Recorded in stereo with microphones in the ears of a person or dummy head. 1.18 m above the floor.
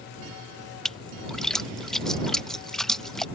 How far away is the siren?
I don't hear a siren.